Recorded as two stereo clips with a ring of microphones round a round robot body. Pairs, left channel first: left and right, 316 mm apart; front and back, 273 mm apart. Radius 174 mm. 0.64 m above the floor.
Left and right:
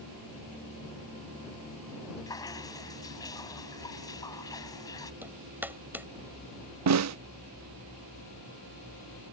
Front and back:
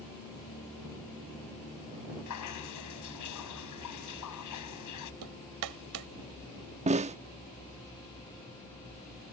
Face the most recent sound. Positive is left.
turn(degrees=-115)